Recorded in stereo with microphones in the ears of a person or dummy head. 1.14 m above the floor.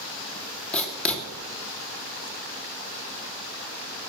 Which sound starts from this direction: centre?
Writing, at 0.7 s.